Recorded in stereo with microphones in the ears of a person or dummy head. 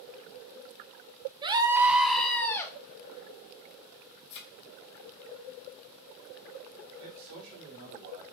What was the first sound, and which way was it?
A scream, 20° right (ahead or behind).